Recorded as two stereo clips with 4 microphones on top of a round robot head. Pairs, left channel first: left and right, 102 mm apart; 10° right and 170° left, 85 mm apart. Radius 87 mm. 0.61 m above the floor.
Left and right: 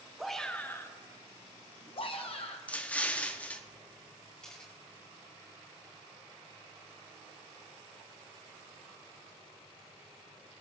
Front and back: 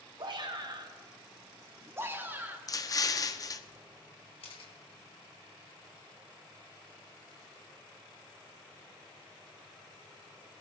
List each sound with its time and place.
0.2 s a shout: straight behind, 1.0 m; by 2.6 s 105° left, 1.9 m
2.7 s an explosion: 15° left, 0.8 m
4.4 s a camera shutter: 5° left, 2.5 m